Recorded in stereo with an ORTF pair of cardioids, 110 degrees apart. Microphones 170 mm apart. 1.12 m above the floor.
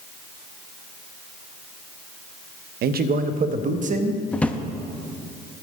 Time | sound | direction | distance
2.8 | a man speaking | 65° right | 0.7 m
4.3 | a drawer | 10° left | 0.8 m